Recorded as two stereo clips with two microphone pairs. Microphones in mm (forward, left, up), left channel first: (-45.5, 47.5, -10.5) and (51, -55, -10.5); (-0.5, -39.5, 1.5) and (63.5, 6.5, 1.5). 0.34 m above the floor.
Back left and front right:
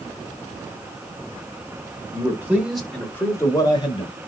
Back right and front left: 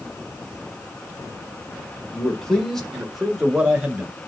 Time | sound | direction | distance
2.1 | a man speaking | 75° right | 1.1 m